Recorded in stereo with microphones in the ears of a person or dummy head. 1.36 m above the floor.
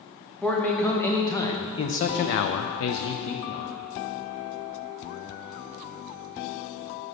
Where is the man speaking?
5° left (ahead or behind), 1.4 m; by 3.7 s 45° left (ahead or behind), 0.9 m.